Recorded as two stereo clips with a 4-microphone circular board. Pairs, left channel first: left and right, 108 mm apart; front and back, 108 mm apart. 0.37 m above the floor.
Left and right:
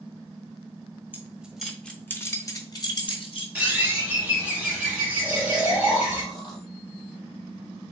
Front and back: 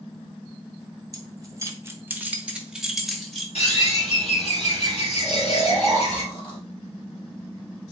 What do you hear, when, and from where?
1.1 s keys jangling: 155° right, 1.0 m; by 3.5 s 85° left, 1.3 m
3.5 s a bird: 10° right, 2.5 m
5.2 s snoring: 40° left, 2 m